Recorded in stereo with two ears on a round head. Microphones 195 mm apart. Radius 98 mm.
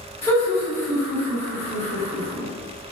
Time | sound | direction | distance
0.2 | laughter | 25° left (ahead or behind) | 1.8 m